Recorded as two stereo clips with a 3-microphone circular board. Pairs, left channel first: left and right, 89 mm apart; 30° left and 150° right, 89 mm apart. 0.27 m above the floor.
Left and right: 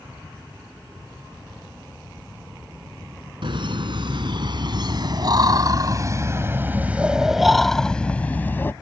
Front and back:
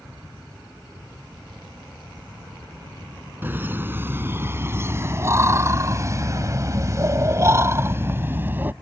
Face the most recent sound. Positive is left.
turn(degrees=150)